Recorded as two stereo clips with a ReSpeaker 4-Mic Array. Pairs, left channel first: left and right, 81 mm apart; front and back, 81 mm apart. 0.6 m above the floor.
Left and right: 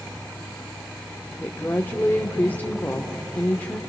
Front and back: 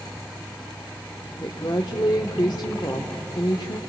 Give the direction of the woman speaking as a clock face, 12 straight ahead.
11 o'clock.